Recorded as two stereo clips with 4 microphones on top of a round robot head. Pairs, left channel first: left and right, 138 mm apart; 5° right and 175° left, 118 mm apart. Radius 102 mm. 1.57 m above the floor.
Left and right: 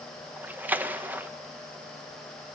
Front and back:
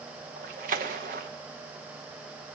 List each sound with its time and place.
0.4 s a splash: 165° right, 1.0 m